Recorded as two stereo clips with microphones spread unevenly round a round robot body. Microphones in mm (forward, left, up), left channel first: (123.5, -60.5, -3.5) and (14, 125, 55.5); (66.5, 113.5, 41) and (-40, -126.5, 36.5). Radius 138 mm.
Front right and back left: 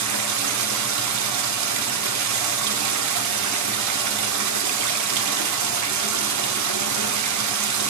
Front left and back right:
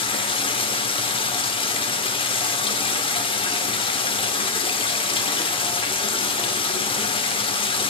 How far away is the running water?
About 1.0 m.